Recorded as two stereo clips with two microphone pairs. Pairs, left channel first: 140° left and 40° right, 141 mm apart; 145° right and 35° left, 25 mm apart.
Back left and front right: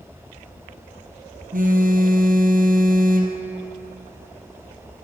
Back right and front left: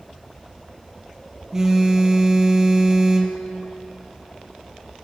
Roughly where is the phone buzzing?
Ahead right.